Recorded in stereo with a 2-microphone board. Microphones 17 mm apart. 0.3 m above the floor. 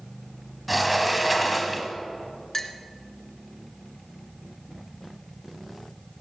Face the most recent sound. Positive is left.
turn(degrees=20)  # may be behind; listen again after turning